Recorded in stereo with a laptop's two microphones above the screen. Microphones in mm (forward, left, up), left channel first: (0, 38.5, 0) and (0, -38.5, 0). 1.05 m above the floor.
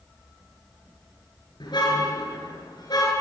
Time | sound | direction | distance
1.6 | a car horn | 75° left (ahead or behind) | 8 m